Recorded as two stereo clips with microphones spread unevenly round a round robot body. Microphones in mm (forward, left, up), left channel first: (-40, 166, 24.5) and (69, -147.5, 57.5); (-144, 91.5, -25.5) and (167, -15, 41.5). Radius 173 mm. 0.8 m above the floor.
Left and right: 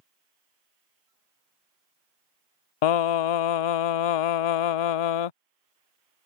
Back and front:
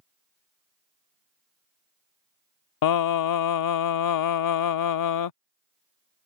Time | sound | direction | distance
2.8 | singing | 125° left | ?